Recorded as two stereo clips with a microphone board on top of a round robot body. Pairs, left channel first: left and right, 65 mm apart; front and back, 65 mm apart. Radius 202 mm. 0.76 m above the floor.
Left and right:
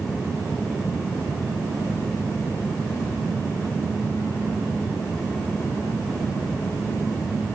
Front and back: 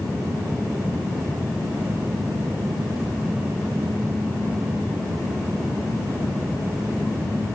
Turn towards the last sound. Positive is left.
No sound to turn to.